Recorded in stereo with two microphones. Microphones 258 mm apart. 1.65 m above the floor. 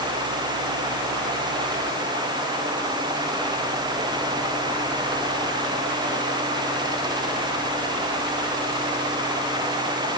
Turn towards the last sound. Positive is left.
No sound to turn to.